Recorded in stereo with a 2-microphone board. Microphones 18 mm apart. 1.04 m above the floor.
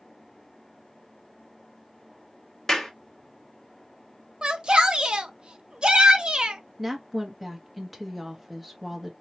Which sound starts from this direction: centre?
A woman speaking, at 6.8 s.